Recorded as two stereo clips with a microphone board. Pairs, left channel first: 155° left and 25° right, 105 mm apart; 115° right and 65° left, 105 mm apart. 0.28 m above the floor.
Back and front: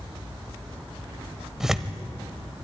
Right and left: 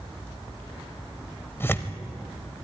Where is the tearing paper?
100° right, 1.0 m.